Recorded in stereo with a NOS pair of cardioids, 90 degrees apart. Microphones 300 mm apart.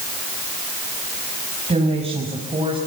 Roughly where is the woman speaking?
Ahead.